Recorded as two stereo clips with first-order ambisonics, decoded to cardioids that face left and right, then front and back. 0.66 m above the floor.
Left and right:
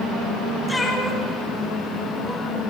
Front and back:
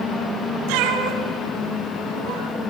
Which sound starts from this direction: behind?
A cat meowing, at 0.7 s.